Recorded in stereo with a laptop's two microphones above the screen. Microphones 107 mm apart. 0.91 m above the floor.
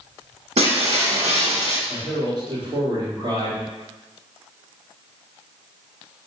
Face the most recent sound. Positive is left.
turn(degrees=-40)  # may be behind; listen again after turning